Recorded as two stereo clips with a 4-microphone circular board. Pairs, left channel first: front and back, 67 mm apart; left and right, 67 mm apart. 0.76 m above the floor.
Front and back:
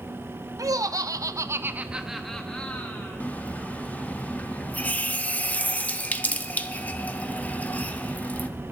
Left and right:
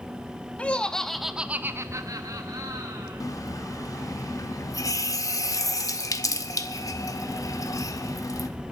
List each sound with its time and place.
0.6 s laughter: 160° left, 1.1 m; by 3.2 s 65° right, 1.5 m
3.2 s a running tap: 65° left, 0.9 m